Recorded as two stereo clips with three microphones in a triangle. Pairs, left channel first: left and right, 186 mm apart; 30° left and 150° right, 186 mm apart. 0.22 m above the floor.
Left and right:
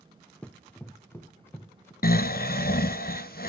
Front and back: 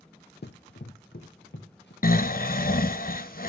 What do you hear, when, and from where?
0.4 s running footsteps: 10° left, 0.5 m; by 1.9 s 15° left, 2 m
2.0 s snoring: 60° left, 0.5 m